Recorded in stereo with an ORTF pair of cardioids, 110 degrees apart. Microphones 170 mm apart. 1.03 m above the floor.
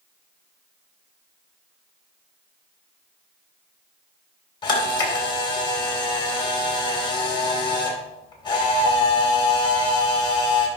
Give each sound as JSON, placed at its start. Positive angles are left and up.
{"t": 4.6, "sound": "a camera shutter", "azimuth_deg": 25, "distance_m": 2.5}